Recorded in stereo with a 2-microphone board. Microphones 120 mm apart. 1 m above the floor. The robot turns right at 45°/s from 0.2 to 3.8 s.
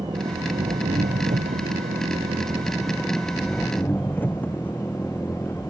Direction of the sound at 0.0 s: 145° right.